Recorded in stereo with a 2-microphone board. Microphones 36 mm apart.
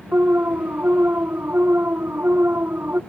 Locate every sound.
0.1 s an alarm: 80° right